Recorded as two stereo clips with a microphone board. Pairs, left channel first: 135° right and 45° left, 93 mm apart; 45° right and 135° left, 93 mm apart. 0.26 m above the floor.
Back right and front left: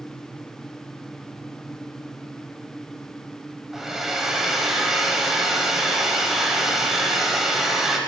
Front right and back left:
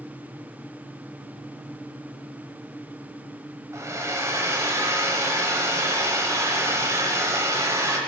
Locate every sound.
3.7 s a hair dryer: 130° left, 0.8 m